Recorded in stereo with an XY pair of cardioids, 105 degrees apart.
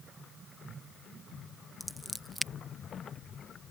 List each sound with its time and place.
1.8 s scissors: 5° right